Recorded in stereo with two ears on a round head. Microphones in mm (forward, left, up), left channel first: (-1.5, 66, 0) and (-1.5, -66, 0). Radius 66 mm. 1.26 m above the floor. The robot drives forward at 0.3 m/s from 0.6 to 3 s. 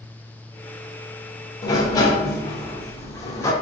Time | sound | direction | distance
1.6 | a sliding door | 25° left (ahead or behind) | 0.5 m